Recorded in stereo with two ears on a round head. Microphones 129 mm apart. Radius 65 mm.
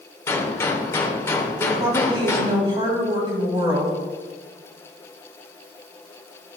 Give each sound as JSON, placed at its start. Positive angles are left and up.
{"t": 0.3, "sound": "a gunshot", "side_deg": 20, "distance_m": 1.1}
{"t": 1.6, "sound": "a woman speaking", "side_deg": -30, "distance_m": 2.5}